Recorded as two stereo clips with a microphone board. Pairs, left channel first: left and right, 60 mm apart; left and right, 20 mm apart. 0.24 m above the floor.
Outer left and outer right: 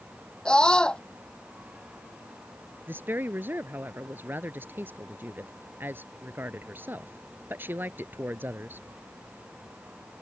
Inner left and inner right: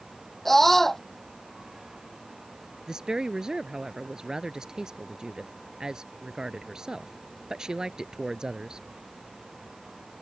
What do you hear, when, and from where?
0.5 s a scream: 15° left (ahead or behind)
2.9 s a woman speaking: 35° right (ahead or behind)